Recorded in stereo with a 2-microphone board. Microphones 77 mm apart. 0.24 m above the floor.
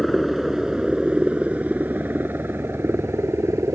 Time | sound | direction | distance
0.0 | a helicopter | centre (ahead or behind) | ?